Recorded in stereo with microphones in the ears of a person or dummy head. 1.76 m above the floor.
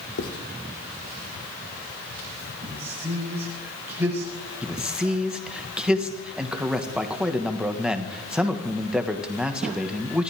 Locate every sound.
0.2 s writing: 65° left (ahead or behind), 2.5 m
2.6 s a man speaking: 15° right (ahead or behind), 9 m
4.6 s a man speaking: 5° right (ahead or behind), 1.8 m